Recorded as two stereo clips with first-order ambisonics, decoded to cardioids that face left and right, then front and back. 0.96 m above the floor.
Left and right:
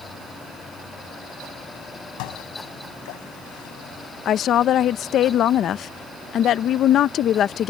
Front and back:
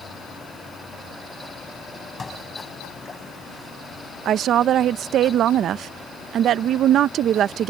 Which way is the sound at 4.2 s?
135° left.